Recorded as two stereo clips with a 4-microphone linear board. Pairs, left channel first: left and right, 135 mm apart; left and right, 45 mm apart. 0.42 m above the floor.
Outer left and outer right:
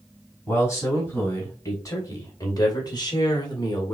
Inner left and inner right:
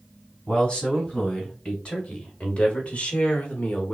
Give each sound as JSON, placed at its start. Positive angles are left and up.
{"t": 0.5, "sound": "a man speaking", "side_deg": 20, "distance_m": 3.0}